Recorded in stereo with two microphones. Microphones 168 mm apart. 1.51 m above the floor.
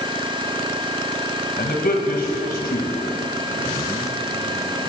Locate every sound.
1.6 s a man speaking: 65° left (ahead or behind), 2.5 m